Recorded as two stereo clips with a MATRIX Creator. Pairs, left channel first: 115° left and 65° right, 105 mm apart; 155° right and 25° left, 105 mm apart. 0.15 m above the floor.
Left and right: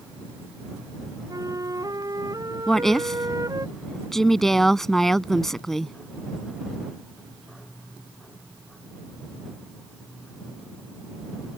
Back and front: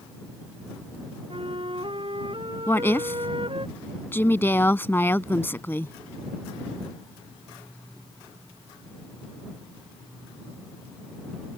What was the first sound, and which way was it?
A flute, 15° right.